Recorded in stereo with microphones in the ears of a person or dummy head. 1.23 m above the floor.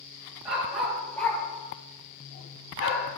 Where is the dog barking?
Centre (ahead or behind), 3 m; by 3.0 s 55° left (ahead or behind), 1.8 m.